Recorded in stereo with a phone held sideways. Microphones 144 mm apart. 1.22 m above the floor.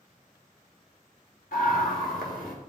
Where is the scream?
75° left (ahead or behind), 4 m; by 2.5 s 85° left, 4 m.